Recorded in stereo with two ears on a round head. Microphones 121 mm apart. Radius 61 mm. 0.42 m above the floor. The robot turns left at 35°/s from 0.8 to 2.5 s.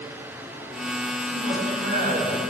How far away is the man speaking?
About 3 m.